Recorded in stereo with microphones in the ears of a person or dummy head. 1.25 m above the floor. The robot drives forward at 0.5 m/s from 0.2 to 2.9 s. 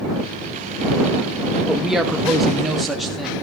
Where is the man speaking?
5° right (ahead or behind), 0.9 m.